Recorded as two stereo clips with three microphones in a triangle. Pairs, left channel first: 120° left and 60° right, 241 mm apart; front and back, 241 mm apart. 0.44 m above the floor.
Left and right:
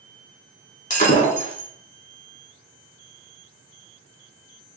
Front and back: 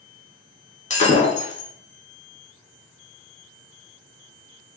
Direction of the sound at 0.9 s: 60° left.